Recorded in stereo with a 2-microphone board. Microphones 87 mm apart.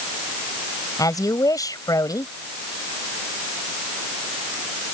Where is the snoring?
No snoring in this recording.